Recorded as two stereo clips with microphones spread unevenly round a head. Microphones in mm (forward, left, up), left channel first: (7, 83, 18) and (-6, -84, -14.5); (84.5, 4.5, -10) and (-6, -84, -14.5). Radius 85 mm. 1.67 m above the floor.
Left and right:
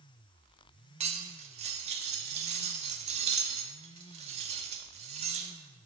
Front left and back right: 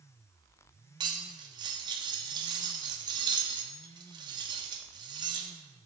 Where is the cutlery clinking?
130° right, 0.8 m.